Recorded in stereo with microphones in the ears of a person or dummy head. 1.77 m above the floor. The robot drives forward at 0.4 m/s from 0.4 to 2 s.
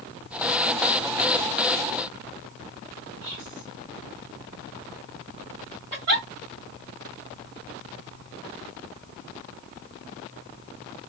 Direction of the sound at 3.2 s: 70° right (ahead or behind).